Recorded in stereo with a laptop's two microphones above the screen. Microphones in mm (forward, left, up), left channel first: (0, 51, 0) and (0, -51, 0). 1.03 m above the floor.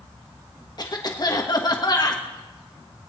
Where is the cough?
45° left (ahead or behind), 1.0 m.